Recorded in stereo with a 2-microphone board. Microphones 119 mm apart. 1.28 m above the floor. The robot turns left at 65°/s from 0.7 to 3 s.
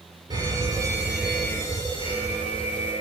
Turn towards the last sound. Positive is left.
turn(degrees=70)